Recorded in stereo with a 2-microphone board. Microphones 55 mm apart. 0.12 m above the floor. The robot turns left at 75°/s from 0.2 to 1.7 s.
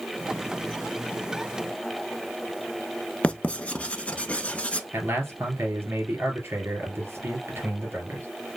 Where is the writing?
20° left (ahead or behind), 0.6 m.